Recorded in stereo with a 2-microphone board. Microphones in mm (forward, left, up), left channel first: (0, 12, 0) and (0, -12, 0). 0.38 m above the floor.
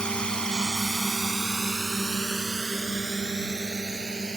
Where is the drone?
40° left (ahead or behind); by 4.4 s 30° right (ahead or behind).